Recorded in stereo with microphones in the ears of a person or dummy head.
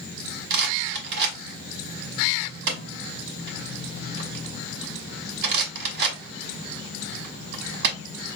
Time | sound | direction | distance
0.5 | a rattle | 55° right (ahead or behind) | 1.1 m